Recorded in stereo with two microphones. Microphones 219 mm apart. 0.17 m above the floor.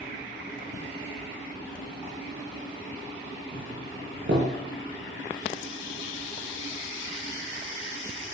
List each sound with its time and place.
3.5 s a doorbell: 60° right (ahead or behind), 5 m